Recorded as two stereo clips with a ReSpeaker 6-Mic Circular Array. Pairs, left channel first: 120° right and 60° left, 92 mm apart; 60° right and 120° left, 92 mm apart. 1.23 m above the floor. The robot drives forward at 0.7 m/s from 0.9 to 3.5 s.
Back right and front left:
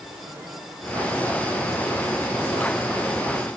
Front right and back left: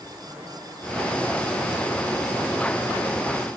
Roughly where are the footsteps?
No footsteps in this recording.